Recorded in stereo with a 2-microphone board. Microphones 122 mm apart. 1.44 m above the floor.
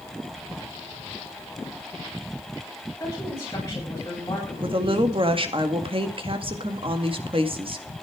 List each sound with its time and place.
3.0 s a woman speaking: 25° left (ahead or behind), 8.5 m
4.6 s a woman speaking: 45° right (ahead or behind), 1.9 m